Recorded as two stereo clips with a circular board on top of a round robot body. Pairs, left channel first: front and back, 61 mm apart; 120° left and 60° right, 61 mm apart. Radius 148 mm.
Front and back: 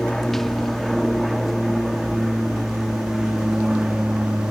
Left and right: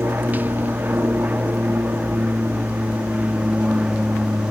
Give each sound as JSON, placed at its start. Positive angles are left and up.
{"t": 0.0, "sound": "an aircraft", "azimuth_deg": -80}